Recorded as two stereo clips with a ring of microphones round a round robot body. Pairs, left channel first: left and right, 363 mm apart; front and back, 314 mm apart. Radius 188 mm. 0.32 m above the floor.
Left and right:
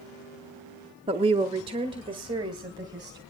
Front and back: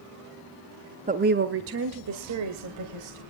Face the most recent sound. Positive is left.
turn(degrees=-170)